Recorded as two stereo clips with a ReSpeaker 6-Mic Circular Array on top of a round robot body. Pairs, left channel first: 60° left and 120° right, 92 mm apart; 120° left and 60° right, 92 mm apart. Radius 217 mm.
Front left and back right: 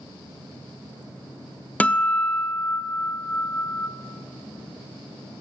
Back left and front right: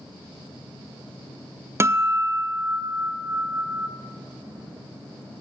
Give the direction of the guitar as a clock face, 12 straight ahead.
12 o'clock.